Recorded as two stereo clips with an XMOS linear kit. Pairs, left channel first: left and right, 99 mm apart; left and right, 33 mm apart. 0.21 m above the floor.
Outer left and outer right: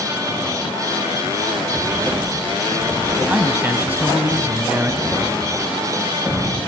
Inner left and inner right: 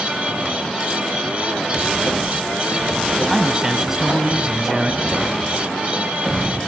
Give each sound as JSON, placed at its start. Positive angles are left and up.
{"t": 3.3, "sound": "a man speaking", "side_deg": -25, "distance_m": 1.7}
{"t": 5.0, "sound": "a thud", "side_deg": 10, "distance_m": 9.5}